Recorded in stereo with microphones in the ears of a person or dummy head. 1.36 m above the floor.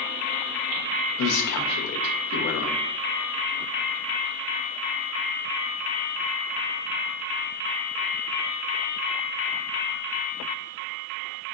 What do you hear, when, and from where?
1.2 s a man speaking: 65° left (ahead or behind), 0.9 m